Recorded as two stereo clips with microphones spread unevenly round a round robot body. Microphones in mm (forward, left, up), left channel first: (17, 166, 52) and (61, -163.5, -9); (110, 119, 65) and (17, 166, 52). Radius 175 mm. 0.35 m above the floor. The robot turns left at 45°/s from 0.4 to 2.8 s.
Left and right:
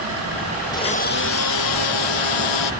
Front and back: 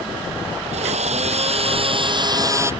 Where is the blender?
Straight behind; by 2.7 s 90° left.